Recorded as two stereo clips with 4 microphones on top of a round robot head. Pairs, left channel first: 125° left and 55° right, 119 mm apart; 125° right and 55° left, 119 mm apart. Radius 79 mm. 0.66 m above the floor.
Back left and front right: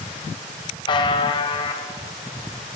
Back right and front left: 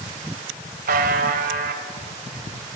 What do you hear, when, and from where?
0.9 s a buzzer: 70° left, 1.0 m